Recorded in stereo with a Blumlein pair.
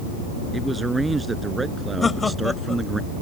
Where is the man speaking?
10° right.